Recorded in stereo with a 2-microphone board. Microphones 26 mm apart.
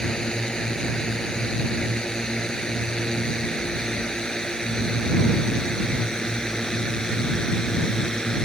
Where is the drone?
25° left (ahead or behind).